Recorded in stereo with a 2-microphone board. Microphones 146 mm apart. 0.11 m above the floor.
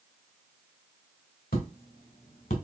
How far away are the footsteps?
About 1.9 m.